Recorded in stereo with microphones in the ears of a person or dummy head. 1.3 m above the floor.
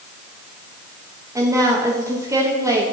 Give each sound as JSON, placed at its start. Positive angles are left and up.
{"t": 1.4, "sound": "a woman speaking", "side_deg": -15, "distance_m": 1.7}